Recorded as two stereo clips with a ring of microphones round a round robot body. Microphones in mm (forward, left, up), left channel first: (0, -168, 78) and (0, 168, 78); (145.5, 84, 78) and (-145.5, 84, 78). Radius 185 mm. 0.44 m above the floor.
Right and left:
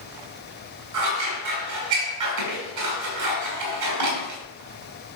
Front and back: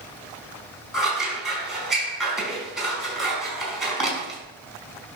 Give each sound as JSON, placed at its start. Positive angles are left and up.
{"t": 0.9, "sound": "scissors", "azimuth_deg": 90, "distance_m": 4.5}